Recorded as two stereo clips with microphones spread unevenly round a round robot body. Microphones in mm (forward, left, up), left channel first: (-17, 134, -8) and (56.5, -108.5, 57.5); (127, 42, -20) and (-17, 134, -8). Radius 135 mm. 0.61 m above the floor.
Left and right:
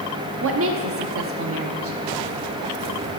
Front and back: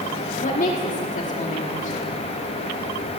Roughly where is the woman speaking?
Ahead right.